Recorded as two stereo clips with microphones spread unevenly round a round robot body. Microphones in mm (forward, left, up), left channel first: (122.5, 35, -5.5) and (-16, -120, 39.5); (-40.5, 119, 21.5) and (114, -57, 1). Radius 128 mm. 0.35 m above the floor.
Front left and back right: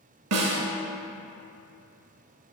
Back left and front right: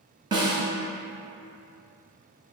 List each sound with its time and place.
0.3 s a snare drum: 120° right, 0.9 m